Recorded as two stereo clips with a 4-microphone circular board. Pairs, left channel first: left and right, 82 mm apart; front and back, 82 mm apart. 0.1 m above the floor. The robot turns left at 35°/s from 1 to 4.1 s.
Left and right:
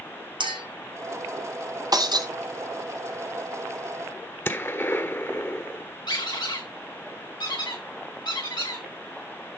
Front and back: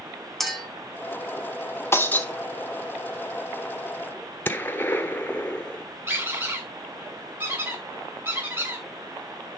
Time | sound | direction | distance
0.4 | a clink | 85° right | 4.5 m
1.9 | breaking glass | 60° right | 1.8 m
4.5 | a gunshot | 50° left | 1.5 m
6.1 | a squeak | 115° left | 8 m